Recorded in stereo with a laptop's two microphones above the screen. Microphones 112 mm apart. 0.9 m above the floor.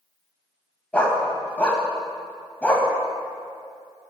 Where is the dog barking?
10° left (ahead or behind), 1.6 m.